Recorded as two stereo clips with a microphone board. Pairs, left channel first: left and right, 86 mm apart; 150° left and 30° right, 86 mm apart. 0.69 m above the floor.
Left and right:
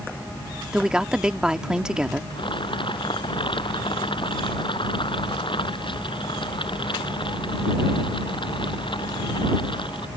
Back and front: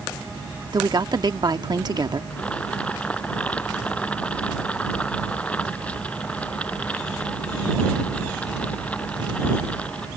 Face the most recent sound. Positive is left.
turn(degrees=75)